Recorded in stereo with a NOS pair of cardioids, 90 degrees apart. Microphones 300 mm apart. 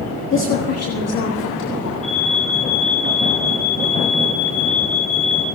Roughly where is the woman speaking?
Ahead left.